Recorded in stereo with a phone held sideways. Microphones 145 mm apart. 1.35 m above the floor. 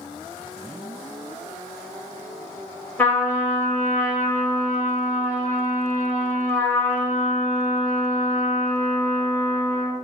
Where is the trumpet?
15° left (ahead or behind), 1.3 m.